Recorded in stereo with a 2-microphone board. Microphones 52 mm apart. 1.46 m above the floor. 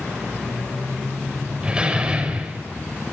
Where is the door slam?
20° right (ahead or behind), 5 m.